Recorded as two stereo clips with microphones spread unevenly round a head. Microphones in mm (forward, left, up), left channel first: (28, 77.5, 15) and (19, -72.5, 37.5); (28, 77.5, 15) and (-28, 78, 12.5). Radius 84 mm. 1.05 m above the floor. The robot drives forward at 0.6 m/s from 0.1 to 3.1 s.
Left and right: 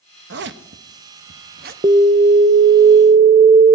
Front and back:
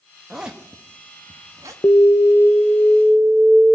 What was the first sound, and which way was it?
A zipper, 95° right.